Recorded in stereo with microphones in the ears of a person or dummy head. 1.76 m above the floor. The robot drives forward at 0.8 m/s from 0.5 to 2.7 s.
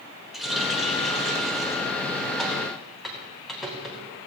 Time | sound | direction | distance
0.3 | a running tap | centre (ahead or behind) | 1.4 m